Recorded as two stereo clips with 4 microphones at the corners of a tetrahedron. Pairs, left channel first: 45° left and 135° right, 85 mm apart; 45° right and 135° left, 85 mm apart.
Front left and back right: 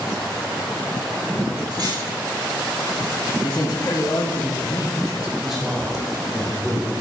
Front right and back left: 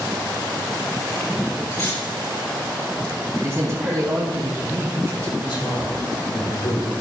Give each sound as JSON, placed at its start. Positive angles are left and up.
{"t": 1.7, "sound": "cutlery clinking", "azimuth_deg": -95, "distance_m": 5.5}
{"t": 3.4, "sound": "a man speaking", "azimuth_deg": 85, "distance_m": 3.5}
{"t": 5.4, "sound": "a man speaking", "azimuth_deg": -50, "distance_m": 3.5}